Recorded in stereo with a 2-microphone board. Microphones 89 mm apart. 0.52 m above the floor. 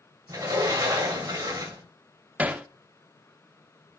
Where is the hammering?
15° right (ahead or behind), 0.6 m.